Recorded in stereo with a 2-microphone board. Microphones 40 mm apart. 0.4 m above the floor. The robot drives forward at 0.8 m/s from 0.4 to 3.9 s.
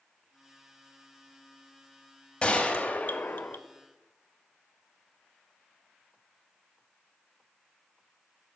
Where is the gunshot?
20° left (ahead or behind), 1.0 m; by 3.6 s 55° left (ahead or behind), 0.5 m.